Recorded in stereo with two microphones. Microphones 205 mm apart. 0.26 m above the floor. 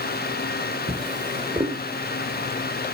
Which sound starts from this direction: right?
A drawer, at 0.9 s.